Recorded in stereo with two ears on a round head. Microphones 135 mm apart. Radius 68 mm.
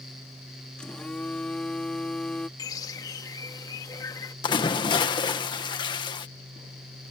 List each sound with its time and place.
0.8 s a phone buzzing: 5° left (ahead or behind)
2.6 s a bird: 25° left (ahead or behind)
4.4 s a splash: 30° left (ahead or behind)